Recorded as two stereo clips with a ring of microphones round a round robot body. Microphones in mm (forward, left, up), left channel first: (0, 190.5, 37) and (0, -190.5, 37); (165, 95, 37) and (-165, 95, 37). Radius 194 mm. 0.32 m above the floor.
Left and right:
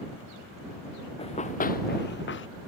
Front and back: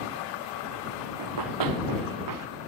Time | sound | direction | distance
1.2 | running footsteps | 165° left | ?